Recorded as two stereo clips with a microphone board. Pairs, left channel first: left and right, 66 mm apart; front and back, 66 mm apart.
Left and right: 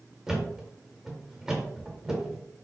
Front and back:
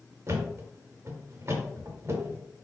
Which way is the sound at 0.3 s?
165° right.